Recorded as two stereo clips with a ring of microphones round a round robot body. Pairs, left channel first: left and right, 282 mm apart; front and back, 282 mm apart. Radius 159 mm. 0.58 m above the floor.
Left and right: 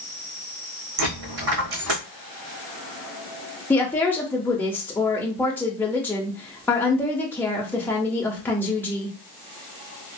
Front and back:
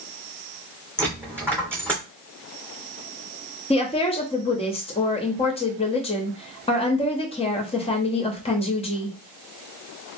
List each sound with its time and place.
1.0 s a dropped coin: 100° right, 1.7 m
3.7 s a woman speaking: 20° left, 0.6 m